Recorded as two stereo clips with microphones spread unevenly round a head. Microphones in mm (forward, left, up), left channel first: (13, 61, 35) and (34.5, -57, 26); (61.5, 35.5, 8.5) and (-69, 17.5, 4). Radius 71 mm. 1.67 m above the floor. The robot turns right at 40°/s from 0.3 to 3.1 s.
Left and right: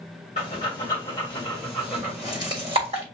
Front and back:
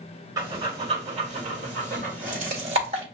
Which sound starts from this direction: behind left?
Breathing, at 0.4 s.